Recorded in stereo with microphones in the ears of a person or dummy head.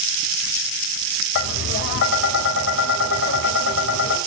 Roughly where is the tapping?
Left.